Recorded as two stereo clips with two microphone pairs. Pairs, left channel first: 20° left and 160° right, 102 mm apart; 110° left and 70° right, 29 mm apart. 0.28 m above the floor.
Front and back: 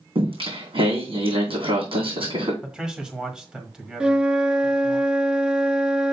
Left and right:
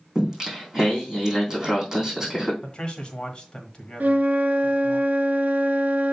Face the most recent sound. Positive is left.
turn(degrees=-80)